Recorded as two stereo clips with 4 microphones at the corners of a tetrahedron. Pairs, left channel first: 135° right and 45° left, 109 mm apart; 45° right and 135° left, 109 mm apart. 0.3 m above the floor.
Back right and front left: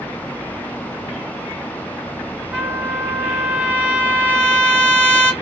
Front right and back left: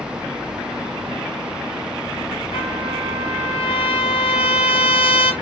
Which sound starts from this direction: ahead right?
A trumpet, at 2.5 s.